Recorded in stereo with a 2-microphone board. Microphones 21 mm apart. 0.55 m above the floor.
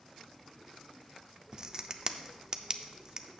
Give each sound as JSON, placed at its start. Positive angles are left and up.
{"t": 1.5, "sound": "a crack", "side_deg": -30, "distance_m": 0.5}